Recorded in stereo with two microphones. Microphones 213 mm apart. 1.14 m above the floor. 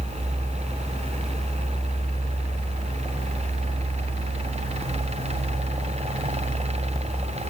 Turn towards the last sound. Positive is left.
No sound to turn to.